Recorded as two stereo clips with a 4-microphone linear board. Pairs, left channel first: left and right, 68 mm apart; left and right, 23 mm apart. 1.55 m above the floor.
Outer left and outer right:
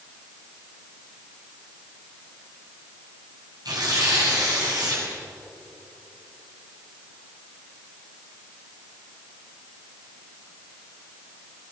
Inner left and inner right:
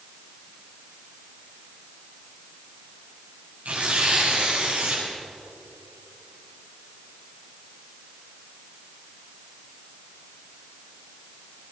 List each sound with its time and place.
3.6 s tearing paper: 85° right, 9 m